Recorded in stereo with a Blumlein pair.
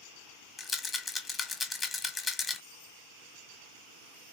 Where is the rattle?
15° left, 1.0 m.